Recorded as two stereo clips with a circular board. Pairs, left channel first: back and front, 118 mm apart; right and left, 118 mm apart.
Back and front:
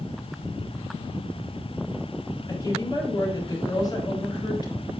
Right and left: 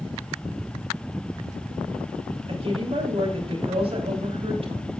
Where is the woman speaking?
125° left, 3.5 m.